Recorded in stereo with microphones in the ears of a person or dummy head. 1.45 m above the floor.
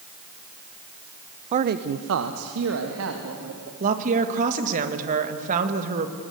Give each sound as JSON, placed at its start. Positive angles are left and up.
{"t": 1.5, "sound": "a man speaking", "side_deg": -40, "distance_m": 0.7}
{"t": 3.8, "sound": "a woman speaking", "side_deg": -40, "distance_m": 2.0}